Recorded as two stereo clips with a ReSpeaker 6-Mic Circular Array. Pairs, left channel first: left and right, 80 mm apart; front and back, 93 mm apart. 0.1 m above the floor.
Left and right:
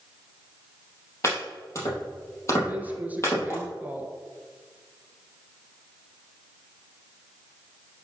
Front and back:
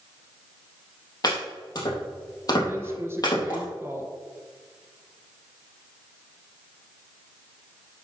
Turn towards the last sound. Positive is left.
turn(degrees=-140)